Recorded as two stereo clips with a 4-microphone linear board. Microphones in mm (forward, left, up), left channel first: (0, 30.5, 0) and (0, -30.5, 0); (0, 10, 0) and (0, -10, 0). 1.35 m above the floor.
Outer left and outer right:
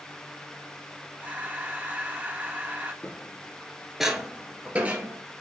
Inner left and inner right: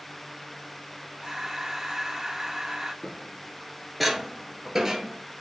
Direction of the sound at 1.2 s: 25° right (ahead or behind).